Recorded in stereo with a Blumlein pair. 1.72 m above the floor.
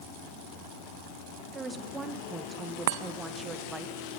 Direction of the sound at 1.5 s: 15° right.